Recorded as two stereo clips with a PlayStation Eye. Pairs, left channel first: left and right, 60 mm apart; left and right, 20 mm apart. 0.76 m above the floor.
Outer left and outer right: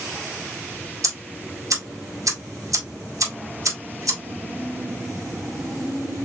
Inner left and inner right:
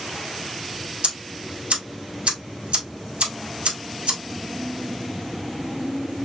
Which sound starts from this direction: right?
Ticking, at 1.0 s.